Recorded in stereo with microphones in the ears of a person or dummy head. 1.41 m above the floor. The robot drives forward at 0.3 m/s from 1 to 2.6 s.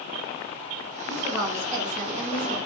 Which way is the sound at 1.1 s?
30° right (ahead or behind).